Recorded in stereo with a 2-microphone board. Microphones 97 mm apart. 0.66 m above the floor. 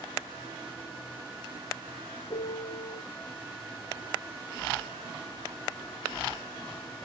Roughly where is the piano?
Left.